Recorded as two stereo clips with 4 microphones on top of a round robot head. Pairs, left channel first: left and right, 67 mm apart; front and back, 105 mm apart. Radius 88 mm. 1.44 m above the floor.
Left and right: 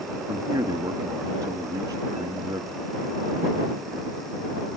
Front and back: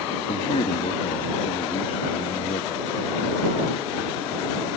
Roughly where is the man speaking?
Ahead right.